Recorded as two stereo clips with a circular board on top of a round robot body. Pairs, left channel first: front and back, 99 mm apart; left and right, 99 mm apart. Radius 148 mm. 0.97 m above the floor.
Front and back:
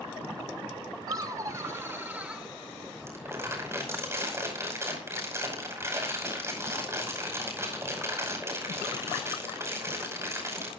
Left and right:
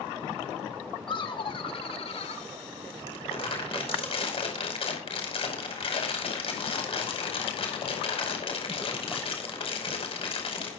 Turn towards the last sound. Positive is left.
turn(degrees=115)